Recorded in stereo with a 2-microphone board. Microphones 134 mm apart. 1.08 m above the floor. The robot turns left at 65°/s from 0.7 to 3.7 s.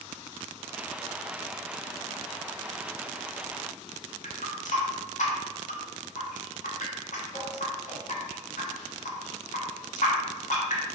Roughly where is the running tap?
Left.